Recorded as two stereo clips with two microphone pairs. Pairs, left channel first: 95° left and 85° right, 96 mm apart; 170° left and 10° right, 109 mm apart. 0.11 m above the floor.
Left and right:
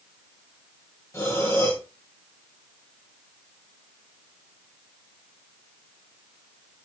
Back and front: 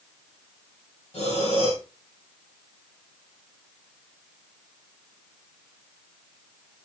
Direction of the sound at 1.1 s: 150° left.